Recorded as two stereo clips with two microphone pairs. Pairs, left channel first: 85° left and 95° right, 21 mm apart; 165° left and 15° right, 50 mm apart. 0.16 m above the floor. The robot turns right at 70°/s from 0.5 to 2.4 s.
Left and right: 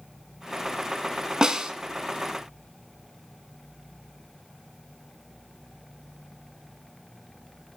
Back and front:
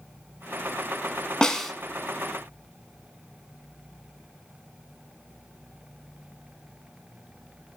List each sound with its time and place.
1.4 s a snare drum: 125° right, 0.5 m; by 1.7 s 100° right, 0.5 m